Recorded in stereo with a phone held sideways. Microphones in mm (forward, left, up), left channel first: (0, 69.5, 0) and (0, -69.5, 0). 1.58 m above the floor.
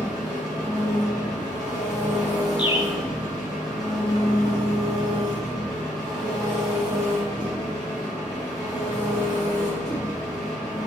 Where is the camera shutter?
No camera shutter in this recording.